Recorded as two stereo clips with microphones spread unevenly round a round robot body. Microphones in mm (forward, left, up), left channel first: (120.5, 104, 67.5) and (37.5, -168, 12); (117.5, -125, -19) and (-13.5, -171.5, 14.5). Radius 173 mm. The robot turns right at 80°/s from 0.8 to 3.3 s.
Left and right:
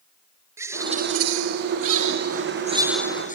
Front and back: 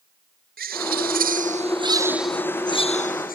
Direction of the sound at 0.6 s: 170° left.